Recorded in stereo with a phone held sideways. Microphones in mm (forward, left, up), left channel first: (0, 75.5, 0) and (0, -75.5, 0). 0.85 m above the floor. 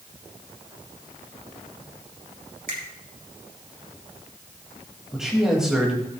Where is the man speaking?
5° right (ahead or behind), 4 m.